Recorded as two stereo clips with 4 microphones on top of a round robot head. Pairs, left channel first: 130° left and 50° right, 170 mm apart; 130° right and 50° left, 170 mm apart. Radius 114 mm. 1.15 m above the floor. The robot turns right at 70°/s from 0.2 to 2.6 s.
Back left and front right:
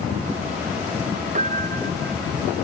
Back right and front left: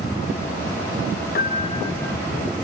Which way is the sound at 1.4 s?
100° right.